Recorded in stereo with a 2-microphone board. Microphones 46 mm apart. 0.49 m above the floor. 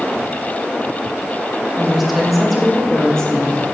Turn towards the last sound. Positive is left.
turn(degrees=20)  # may be behind; listen again after turning